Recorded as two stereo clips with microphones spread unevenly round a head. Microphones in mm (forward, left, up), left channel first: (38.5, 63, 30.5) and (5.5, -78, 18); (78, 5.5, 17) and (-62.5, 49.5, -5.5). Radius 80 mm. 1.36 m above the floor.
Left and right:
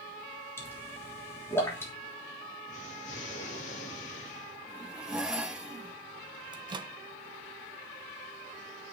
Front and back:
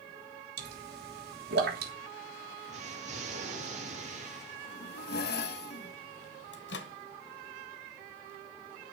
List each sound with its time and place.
0.6 s a pop: 155° left, 3 m
2.7 s an explosion: 125° left, 3.5 m
4.7 s a zipper: 15° right, 1.5 m
6.5 s a microwave: 40° right, 1.2 m